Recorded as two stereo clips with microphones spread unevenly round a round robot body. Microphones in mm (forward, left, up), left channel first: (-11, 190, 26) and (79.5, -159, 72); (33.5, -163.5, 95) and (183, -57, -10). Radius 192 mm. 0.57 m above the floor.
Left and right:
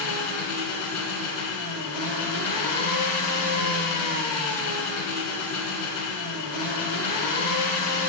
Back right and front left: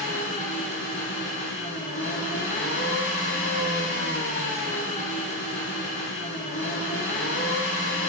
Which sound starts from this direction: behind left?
An engine running, at 0.0 s.